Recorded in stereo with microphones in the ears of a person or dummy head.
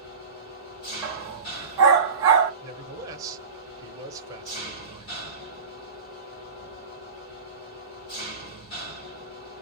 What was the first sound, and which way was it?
An engine running, 35° left (ahead or behind).